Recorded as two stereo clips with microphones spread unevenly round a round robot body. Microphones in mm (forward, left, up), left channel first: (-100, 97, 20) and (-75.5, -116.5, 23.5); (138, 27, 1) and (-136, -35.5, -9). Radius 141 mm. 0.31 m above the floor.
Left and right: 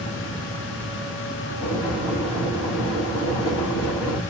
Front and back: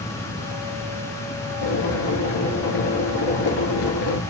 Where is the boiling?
15° left, 1.6 m.